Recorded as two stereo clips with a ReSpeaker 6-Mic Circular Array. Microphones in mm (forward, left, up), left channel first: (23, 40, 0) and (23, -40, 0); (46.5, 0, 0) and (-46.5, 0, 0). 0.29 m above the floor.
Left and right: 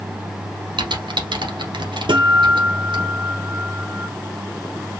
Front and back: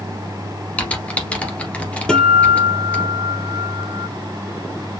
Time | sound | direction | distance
0.8 | typing on a keyboard | 75° right | 1.7 m
2.1 | a guitar | 80° right | 1.8 m